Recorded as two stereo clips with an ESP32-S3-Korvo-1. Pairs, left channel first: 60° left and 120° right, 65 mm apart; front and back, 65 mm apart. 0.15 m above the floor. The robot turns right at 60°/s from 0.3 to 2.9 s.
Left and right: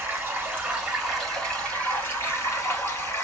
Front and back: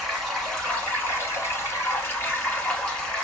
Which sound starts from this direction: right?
Running water, at 0.0 s.